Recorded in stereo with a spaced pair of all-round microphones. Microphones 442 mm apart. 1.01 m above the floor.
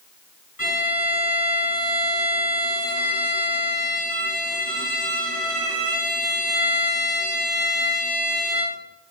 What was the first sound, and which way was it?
A violin, 40° left (ahead or behind).